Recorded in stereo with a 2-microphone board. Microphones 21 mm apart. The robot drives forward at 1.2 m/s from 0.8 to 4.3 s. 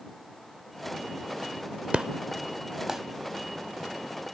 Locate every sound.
1.9 s an explosion: 65° right (ahead or behind); by 3.0 s 25° right (ahead or behind)